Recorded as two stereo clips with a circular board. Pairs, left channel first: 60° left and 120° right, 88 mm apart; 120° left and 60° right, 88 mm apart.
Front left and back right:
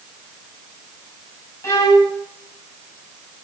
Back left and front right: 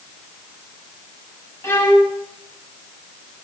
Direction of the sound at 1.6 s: 85° left.